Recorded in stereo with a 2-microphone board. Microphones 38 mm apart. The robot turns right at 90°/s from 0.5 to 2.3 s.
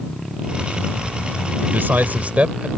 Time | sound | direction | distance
1.6 | a man speaking | 105° right | ?